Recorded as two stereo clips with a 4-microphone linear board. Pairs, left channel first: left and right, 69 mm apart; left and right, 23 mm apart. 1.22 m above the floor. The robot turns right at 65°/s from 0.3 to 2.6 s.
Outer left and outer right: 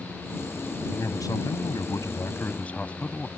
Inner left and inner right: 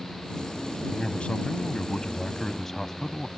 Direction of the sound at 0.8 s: 40° left.